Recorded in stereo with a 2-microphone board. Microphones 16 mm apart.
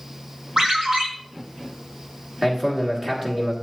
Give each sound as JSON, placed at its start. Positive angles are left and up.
{"t": 0.6, "sound": "a ringtone", "side_deg": -75, "distance_m": 3.5}
{"t": 2.4, "sound": "a man speaking", "side_deg": -25, "distance_m": 1.6}